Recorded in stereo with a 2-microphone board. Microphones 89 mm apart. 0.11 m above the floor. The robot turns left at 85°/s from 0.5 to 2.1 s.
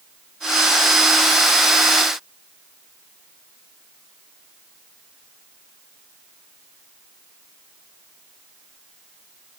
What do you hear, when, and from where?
Only background noise.